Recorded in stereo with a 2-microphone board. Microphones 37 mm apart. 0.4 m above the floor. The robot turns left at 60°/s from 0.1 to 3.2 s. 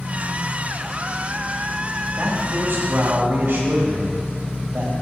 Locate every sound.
2.2 s a man speaking: 55° right, 1.8 m; by 4.9 s 115° right, 1.8 m